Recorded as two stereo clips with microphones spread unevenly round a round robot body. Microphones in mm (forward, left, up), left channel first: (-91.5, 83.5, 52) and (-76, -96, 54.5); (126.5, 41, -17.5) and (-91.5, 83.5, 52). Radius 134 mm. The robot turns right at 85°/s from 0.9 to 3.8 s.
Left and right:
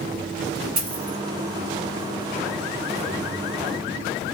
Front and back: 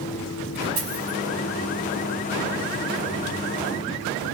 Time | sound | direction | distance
0.8 | a dropped coin | 115° right | 2.5 m